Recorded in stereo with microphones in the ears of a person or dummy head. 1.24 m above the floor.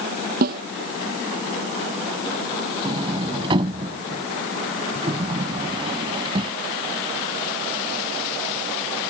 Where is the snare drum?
50° right (ahead or behind).